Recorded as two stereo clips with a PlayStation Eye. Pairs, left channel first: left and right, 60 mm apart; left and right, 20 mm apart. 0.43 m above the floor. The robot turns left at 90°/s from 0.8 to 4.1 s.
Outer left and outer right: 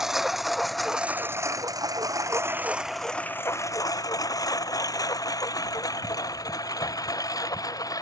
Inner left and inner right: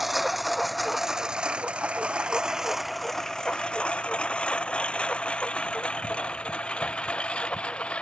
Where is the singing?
I don't hear singing.